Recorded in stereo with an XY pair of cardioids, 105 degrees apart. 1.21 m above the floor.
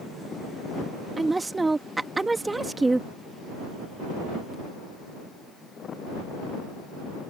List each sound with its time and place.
1.2 s a woman speaking: 15° right